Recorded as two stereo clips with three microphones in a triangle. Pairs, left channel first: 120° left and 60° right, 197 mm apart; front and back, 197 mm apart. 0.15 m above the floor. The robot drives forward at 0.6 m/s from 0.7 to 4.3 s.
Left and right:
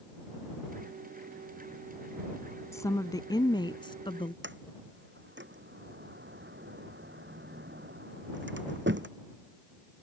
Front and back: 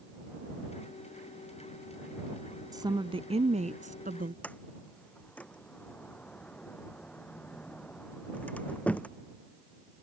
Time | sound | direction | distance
2.7 | a woman speaking | 160° left | ?
4.4 | a sliding door | 85° right | ?